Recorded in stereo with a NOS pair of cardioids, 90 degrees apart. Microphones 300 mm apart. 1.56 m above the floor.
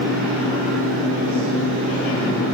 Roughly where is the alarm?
I don't hear an alarm.